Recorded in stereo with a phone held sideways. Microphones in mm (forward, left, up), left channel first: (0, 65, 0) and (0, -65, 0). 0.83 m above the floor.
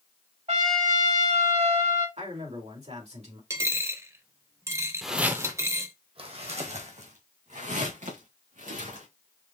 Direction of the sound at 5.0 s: Centre (ahead or behind).